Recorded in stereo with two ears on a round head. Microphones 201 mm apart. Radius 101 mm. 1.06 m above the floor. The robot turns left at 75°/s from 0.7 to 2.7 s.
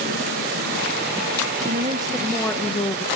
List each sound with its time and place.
1.7 s a woman speaking: 130° right, 1.0 m; by 3.0 s 150° left, 1.0 m